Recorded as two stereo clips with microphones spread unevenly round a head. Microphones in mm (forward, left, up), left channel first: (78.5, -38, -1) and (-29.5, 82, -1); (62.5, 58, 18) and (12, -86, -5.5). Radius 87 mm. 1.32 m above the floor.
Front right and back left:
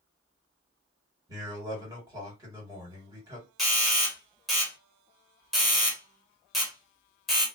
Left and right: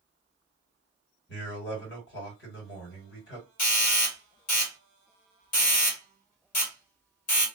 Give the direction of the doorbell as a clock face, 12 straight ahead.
11 o'clock.